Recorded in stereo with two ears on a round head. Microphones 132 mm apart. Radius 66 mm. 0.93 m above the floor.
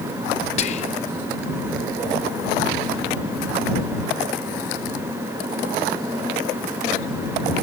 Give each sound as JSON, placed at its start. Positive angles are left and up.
{"t": 0.6, "sound": "whispering", "side_deg": 45}